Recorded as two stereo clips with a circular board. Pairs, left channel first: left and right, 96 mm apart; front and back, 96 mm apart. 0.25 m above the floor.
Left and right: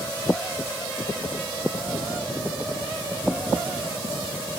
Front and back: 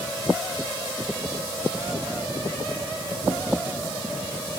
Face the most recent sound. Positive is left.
No sound to turn to.